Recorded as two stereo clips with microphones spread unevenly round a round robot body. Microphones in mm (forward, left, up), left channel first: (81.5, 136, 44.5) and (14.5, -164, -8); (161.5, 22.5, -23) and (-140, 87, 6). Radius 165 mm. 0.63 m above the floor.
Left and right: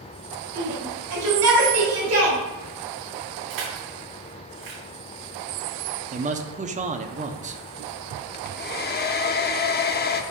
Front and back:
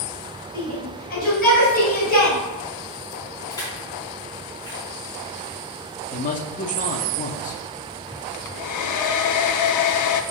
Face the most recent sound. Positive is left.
turn(degrees=15)